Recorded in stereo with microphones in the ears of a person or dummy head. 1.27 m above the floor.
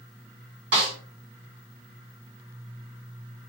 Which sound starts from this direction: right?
A snare drum, at 0.7 s.